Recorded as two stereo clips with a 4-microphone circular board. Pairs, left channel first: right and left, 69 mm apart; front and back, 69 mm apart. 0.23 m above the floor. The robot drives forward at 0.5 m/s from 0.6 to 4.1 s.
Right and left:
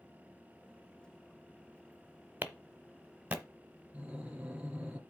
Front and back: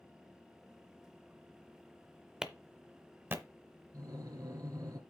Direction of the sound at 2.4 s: 110° left.